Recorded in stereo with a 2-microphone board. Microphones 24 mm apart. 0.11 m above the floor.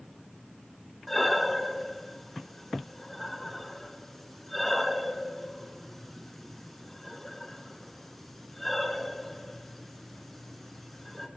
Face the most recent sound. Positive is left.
turn(degrees=10)  # may be behind; listen again after turning